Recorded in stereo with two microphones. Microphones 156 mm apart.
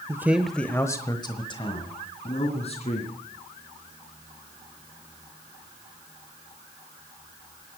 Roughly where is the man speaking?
Centre.